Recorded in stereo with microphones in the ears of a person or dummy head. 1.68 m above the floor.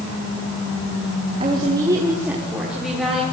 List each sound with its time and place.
1.4 s a woman speaking: 30° right (ahead or behind), 3 m; by 3.2 s centre (ahead or behind), 5 m